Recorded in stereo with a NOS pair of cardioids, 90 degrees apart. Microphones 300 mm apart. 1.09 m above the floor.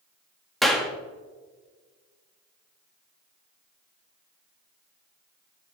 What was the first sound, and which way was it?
A clap, straight ahead.